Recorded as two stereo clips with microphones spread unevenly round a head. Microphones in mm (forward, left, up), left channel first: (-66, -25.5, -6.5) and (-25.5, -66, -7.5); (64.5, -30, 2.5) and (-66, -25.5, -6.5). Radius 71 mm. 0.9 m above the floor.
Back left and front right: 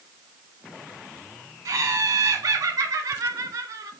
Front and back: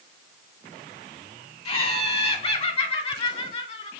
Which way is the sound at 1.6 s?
40° right.